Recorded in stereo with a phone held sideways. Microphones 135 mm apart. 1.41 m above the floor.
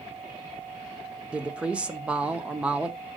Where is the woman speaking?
5° right (ahead or behind), 0.8 m.